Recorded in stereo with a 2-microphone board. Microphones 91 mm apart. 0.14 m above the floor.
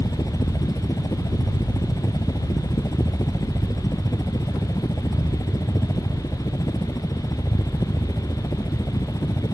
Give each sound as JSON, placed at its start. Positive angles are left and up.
{"t": 0.0, "sound": "a helicopter", "side_deg": 40}